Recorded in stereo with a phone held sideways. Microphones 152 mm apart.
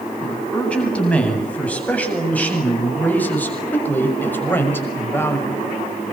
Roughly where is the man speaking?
Centre.